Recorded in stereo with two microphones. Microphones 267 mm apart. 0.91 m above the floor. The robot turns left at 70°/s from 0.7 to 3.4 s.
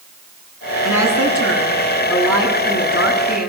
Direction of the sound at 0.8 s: 85° right.